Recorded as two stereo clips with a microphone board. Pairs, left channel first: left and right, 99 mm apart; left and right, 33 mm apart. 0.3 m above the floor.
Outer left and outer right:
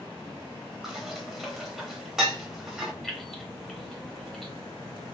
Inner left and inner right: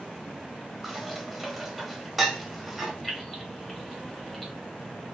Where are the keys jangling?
Centre (ahead or behind), 1.1 m.